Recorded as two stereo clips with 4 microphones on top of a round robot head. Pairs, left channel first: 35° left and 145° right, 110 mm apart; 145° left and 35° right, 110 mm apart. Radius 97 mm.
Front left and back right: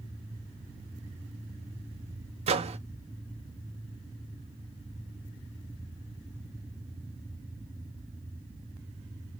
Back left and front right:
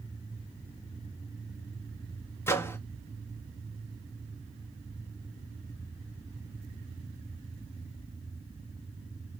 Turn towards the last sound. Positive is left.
turn(degrees=-150)